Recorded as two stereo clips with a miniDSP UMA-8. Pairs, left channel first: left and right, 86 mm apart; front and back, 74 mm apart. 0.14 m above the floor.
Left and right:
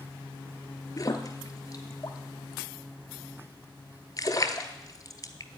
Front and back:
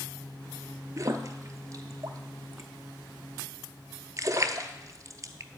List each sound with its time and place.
1.0 s a splash: 135° left, 0.8 m